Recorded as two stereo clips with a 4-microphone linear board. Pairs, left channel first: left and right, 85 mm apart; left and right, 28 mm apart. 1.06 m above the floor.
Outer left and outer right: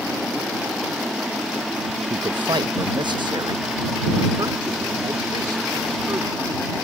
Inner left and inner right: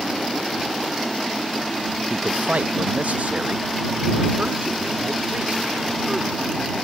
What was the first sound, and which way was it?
A man speaking, 80° right.